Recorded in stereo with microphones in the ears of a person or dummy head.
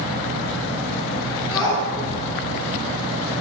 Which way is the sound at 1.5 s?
10° left (ahead or behind).